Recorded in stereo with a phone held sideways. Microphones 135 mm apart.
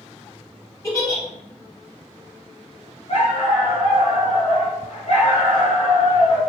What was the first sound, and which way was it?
A giggle, 20° left (ahead or behind).